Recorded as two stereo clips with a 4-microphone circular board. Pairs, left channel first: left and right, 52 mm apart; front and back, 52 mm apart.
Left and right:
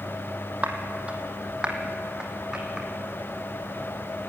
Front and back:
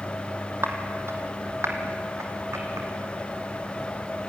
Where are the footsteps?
150° right, 2.5 m; by 2.9 s 165° right, 3.5 m.